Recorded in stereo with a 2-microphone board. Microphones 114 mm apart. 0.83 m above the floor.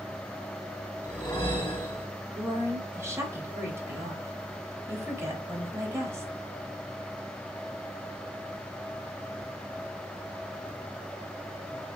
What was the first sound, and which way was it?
A whoosh, 40° left (ahead or behind).